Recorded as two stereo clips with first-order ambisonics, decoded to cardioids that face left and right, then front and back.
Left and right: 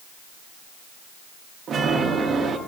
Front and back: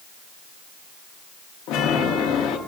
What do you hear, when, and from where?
1.7 s a chime: 25° right, 0.8 m